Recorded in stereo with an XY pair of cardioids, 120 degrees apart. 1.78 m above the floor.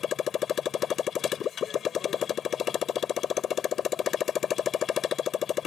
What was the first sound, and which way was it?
A motorcycle, 55° left.